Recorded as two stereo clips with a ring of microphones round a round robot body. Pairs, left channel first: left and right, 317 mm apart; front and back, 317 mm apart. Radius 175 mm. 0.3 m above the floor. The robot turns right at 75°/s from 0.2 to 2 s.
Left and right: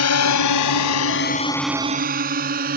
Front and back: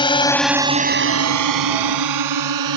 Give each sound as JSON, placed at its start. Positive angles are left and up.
{"t": 0.0, "sound": "a drone", "azimuth_deg": 70}